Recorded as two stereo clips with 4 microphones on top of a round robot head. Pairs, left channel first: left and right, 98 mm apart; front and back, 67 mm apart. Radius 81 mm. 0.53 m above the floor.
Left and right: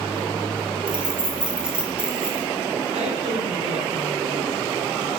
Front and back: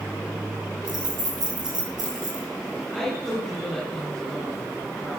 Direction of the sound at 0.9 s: 170° right.